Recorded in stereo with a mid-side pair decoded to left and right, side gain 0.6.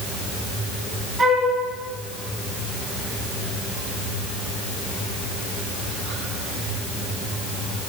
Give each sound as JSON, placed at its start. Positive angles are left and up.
{"t": 1.2, "sound": "a flute", "azimuth_deg": -15, "distance_m": 5.0}